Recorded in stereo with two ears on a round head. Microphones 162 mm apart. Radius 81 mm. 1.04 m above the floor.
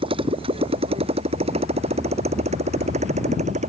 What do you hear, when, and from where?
0.0 s a motorcycle: 30° right (ahead or behind); by 3.7 s 40° right (ahead or behind)